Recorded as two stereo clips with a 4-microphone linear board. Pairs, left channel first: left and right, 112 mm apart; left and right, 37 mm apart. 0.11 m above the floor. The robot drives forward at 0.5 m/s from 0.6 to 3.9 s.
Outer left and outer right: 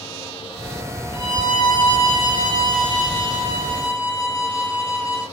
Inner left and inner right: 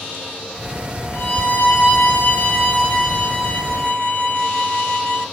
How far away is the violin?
About 2.5 m.